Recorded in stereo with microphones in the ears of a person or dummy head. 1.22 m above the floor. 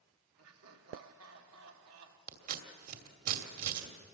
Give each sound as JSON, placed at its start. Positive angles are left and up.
{"t": 0.4, "sound": "laughter", "side_deg": -85, "distance_m": 3.0}
{"t": 2.3, "sound": "scissors", "side_deg": -50, "distance_m": 2.5}